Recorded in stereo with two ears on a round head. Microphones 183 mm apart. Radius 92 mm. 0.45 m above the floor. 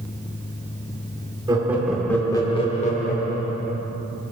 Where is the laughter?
20° right (ahead or behind), 0.8 m; by 3.9 s 55° left (ahead or behind), 1.3 m.